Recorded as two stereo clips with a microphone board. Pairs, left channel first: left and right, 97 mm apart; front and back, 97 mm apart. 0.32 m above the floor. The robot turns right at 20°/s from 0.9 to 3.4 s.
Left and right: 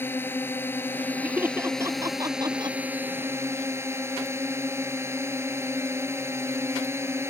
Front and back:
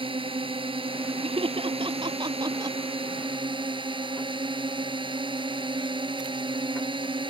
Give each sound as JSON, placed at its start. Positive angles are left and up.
{"t": 0.0, "sound": "a drone", "azimuth_deg": 160}
{"t": 1.2, "sound": "laughter", "azimuth_deg": -165}